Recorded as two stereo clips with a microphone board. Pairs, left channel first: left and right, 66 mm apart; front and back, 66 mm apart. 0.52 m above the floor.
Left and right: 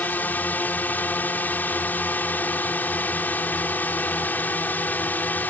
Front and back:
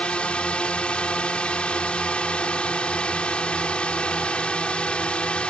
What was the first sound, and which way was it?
A drone, 60° left.